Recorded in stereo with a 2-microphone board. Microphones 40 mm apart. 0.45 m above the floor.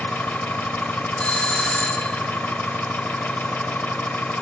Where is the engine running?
60° left (ahead or behind), 0.8 m.